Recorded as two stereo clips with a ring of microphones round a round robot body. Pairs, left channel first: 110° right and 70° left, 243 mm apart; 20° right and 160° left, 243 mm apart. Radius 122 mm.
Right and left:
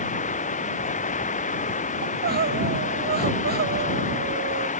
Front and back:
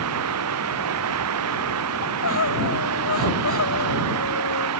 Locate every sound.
0.0 s running water: 175° right
2.0 s crying: 15° left